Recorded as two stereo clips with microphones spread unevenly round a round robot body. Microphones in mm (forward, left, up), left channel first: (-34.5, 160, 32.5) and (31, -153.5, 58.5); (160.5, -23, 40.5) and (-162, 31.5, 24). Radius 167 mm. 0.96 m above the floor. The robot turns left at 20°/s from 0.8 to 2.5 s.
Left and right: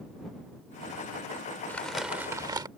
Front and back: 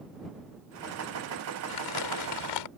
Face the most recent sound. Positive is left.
turn(degrees=0)